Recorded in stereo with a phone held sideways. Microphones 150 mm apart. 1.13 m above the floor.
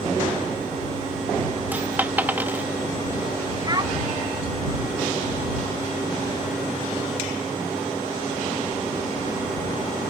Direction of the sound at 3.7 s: 30° right (ahead or behind).